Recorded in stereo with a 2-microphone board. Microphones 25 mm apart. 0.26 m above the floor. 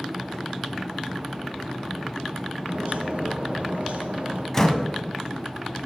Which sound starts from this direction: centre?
A door slam, at 4.5 s.